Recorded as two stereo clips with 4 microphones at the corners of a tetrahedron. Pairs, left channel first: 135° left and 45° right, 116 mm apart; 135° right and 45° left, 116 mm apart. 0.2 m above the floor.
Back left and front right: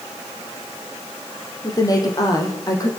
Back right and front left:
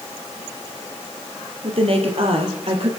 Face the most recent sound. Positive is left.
turn(degrees=75)